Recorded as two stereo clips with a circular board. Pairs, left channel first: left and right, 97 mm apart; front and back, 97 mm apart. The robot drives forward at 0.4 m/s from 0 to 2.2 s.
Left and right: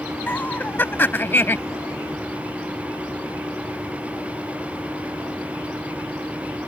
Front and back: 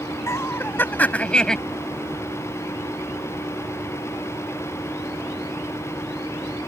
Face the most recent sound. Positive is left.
turn(degrees=105)